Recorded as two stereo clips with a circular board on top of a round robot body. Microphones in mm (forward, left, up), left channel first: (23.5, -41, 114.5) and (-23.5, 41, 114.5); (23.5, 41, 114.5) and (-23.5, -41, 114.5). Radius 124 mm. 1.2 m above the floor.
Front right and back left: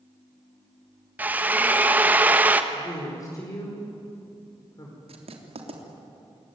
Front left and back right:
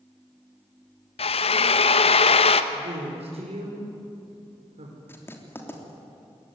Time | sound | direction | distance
1.2 | a drill | 45° left | 1.3 m
2.7 | a woman speaking | 115° right | 5 m
5.1 | writing | 125° left | 3.5 m